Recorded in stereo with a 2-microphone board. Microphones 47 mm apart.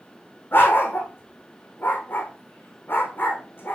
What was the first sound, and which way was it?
A dog barking, 45° left (ahead or behind).